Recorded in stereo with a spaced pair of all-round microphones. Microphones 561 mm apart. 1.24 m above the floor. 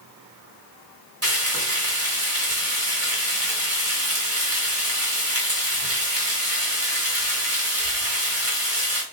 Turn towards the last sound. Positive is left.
turn(degrees=-25)  # may be behind; listen again after turning